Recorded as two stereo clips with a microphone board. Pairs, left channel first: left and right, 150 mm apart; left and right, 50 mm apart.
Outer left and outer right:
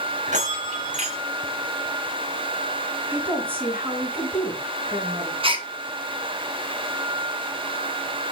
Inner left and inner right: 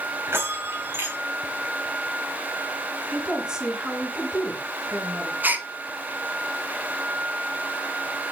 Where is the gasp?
35° right (ahead or behind), 1.5 m.